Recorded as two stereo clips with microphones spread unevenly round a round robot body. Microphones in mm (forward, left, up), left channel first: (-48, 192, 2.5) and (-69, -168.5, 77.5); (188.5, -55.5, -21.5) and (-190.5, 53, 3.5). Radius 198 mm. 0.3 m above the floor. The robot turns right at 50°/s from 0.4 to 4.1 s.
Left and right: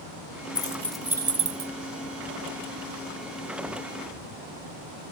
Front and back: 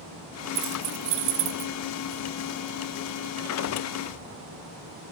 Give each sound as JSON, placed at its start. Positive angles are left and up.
{"t": 0.6, "sound": "keys jangling", "azimuth_deg": 145, "distance_m": 0.7}